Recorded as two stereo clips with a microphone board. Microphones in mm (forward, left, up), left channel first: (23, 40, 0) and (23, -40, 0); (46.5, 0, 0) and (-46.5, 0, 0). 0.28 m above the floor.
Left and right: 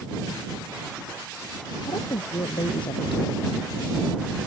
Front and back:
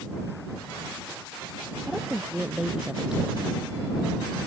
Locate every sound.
1.9 s a woman speaking: 95° left